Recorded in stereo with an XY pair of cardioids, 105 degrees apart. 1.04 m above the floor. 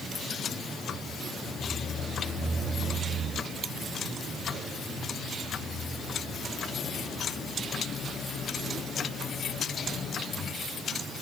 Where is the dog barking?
No dog barking in this recording.